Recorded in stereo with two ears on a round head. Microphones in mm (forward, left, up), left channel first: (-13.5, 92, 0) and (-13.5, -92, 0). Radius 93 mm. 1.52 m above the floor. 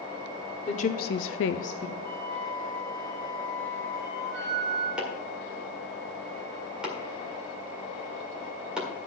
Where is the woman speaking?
35° left (ahead or behind), 1.2 m; by 1.9 s 20° left (ahead or behind), 1.0 m.